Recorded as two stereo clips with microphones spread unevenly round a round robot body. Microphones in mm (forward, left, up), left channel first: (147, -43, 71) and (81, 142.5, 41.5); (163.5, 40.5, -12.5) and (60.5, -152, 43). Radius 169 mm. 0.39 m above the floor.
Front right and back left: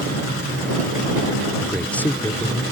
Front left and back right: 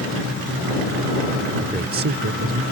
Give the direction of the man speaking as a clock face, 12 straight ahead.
6 o'clock.